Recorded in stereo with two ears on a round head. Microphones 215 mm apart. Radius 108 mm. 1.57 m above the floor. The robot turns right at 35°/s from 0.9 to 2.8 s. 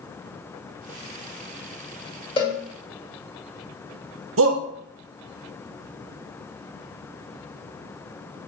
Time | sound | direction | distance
2.4 | a cowbell | 25° left (ahead or behind) | 2.5 m
4.4 | a shout | 65° right (ahead or behind) | 1.2 m